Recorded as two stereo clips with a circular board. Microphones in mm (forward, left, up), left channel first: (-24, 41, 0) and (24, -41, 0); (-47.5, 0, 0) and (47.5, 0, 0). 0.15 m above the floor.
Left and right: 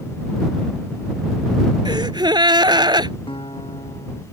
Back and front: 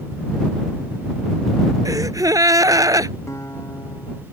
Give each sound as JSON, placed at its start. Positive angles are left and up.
{"t": 1.9, "sound": "a gasp", "azimuth_deg": -40}
{"t": 3.3, "sound": "a guitar", "azimuth_deg": 125}